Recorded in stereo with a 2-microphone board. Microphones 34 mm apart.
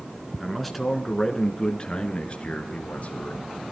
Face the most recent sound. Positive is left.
turn(degrees=45)  # may be behind; listen again after turning